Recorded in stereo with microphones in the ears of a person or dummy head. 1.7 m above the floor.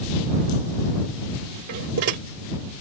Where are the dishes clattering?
55° right (ahead or behind).